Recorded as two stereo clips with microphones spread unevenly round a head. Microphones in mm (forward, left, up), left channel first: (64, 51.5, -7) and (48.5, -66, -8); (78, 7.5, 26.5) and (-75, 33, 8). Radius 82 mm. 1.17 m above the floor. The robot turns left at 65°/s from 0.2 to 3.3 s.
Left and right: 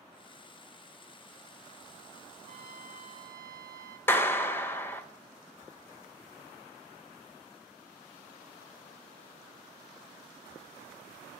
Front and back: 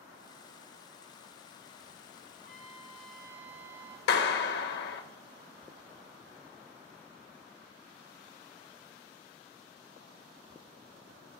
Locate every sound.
2.4 s a trumpet: 45° right, 1.6 m; by 4.0 s 105° right, 1.6 m
4.1 s a clap: 10° left, 1.1 m